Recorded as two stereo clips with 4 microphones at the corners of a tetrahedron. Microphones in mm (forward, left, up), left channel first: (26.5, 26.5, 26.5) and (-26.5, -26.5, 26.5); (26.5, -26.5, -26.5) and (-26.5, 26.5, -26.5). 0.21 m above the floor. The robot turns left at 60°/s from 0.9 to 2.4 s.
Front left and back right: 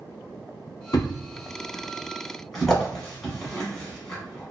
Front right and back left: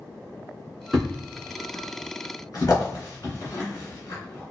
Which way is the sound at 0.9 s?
45° left.